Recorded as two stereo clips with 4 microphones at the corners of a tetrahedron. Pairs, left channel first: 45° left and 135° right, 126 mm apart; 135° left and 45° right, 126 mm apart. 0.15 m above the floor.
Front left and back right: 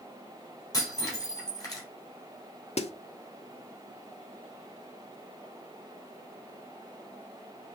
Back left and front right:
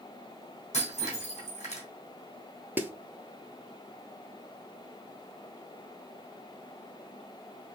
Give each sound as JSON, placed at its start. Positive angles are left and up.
{"t": 0.7, "sound": "breaking glass", "azimuth_deg": 110, "distance_m": 2.5}
{"t": 2.8, "sound": "a snare drum", "azimuth_deg": 30, "distance_m": 0.6}